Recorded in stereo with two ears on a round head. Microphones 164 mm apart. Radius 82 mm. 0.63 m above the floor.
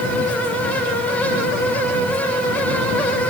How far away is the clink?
I don't hear a clink.